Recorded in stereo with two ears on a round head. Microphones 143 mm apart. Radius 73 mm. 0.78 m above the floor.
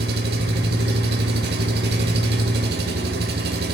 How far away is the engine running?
About 1.0 m.